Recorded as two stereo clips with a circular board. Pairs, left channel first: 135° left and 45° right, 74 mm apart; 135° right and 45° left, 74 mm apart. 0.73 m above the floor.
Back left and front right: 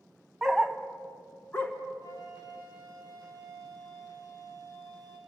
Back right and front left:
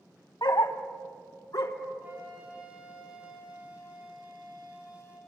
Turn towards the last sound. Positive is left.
turn(degrees=110)